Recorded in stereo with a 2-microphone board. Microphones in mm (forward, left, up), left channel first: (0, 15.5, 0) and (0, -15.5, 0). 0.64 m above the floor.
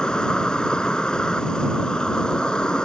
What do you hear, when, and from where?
0.0 s an insect: 35° left (ahead or behind)